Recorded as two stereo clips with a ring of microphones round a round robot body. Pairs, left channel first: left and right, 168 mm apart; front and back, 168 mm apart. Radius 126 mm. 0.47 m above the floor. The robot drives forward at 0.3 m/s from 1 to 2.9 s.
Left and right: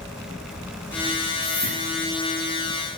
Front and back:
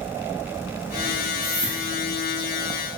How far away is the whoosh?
About 5.5 m.